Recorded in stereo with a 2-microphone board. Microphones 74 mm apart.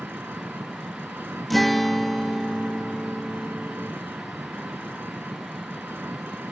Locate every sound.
0.0 s an engine running: 30° right (ahead or behind)
1.5 s a guitar: centre (ahead or behind)